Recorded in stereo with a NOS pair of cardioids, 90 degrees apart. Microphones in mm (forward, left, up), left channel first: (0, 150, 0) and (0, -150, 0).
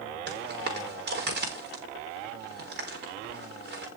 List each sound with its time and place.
0.3 s footsteps: 35° right, 5.5 m